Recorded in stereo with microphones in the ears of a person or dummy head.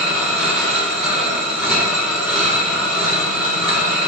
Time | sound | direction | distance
0.0 | a machine running | 5° left (ahead or behind) | 0.8 m